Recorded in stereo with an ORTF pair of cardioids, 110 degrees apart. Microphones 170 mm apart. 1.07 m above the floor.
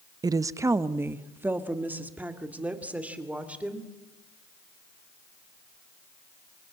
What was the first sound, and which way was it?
A woman speaking, 20° right.